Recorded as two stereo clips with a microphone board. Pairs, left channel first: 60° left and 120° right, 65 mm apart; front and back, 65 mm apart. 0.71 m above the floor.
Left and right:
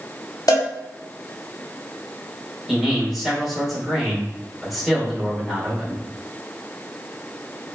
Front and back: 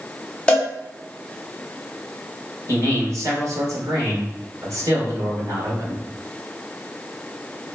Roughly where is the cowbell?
Left.